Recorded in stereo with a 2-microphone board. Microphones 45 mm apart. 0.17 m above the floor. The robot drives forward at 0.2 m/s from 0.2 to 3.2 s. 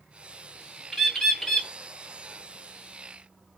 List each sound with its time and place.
0.9 s a bird: 10° left (ahead or behind), 0.6 m; by 1.7 s 5° left (ahead or behind), 0.8 m